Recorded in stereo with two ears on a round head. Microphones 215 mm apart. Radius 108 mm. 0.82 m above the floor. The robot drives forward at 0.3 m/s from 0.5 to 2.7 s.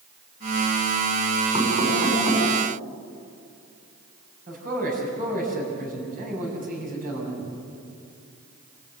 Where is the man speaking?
40° right (ahead or behind), 7 m.